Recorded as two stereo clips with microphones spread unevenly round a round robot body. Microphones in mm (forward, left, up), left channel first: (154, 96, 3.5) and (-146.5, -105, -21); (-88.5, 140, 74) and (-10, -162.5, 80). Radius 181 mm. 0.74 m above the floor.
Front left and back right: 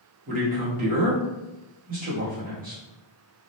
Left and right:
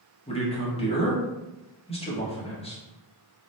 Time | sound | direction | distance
0.3 | a man speaking | 165° left | 1.1 m